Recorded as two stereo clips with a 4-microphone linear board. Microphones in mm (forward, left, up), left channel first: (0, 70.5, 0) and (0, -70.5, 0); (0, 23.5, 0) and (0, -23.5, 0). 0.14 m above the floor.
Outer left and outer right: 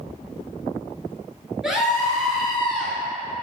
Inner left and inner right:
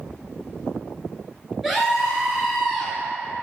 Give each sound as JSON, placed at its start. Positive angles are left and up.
{"t": 1.6, "sound": "a scream", "side_deg": -5, "distance_m": 2.0}